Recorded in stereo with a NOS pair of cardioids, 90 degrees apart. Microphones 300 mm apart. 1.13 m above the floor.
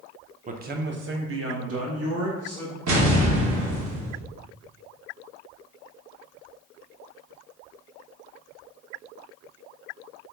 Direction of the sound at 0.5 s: 25° right.